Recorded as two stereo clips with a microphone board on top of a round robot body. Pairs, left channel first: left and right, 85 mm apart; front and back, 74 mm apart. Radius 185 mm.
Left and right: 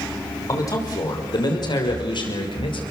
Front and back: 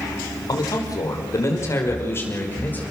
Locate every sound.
0.5 s a man speaking: 35° left, 5 m; by 2.8 s 65° left, 6 m